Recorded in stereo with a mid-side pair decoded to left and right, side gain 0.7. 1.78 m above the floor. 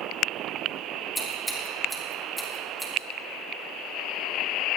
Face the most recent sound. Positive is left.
turn(degrees=0)